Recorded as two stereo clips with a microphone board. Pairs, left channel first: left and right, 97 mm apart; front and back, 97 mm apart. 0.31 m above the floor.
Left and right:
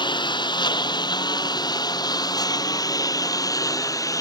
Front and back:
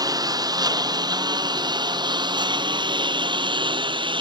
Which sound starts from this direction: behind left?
A lawn mower, at 0.0 s.